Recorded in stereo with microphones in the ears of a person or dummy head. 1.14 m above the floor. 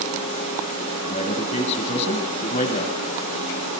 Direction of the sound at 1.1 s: 35° left (ahead or behind).